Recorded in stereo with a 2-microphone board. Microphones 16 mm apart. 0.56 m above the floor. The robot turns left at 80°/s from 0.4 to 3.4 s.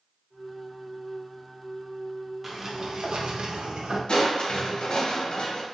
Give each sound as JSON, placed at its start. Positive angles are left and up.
{"t": 2.4, "sound": "a sliding door", "azimuth_deg": -15, "distance_m": 0.5}
{"t": 4.1, "sound": "crushing", "side_deg": 65, "distance_m": 0.7}